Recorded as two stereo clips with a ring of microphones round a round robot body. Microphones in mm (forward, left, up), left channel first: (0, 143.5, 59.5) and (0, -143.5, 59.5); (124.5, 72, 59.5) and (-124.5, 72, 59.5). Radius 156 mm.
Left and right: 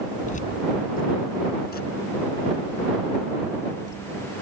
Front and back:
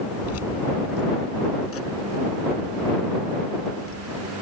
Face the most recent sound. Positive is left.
turn(degrees=35)